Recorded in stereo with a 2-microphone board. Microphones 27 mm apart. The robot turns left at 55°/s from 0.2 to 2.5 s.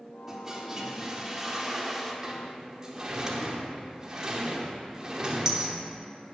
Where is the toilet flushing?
15° right (ahead or behind), 1.0 m; by 2.1 s 5° right (ahead or behind), 1.0 m.